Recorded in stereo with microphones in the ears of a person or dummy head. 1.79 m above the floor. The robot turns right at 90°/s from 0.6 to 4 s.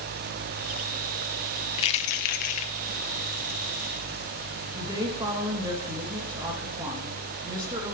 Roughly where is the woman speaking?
Right.